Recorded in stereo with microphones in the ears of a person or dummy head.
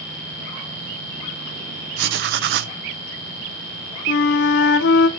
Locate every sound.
2.0 s writing: 70° right (ahead or behind), 0.7 m
4.1 s a flute: 65° left (ahead or behind), 1.0 m